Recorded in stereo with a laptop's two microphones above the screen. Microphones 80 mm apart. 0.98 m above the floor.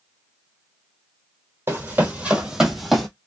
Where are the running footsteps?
30° right (ahead or behind), 1.4 m; by 3.1 s 5° left (ahead or behind), 1.4 m.